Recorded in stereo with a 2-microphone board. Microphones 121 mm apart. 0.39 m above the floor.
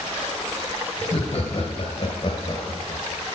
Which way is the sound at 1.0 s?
60° left (ahead or behind).